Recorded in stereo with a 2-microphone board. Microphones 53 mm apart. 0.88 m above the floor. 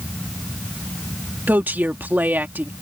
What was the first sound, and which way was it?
A woman speaking, 40° right (ahead or behind).